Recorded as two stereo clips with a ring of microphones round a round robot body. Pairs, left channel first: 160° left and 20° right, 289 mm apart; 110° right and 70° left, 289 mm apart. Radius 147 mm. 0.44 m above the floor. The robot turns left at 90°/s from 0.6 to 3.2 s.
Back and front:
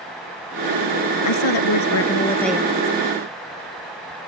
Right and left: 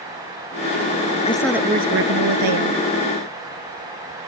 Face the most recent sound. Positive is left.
turn(degrees=5)